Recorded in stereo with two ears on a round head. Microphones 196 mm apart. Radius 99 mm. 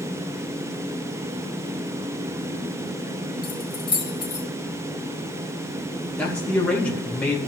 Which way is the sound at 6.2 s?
5° left (ahead or behind).